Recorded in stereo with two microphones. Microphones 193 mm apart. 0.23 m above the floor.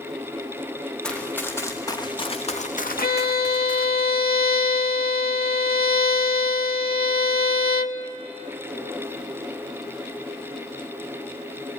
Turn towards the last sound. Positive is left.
turn(degrees=50)  # may be behind; listen again after turning